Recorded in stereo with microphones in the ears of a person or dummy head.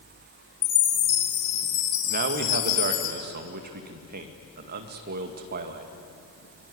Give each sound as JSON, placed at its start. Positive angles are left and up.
{"t": 0.6, "sound": "a chime", "side_deg": 65, "distance_m": 6.5}
{"t": 2.1, "sound": "a man speaking", "side_deg": -50, "distance_m": 2.0}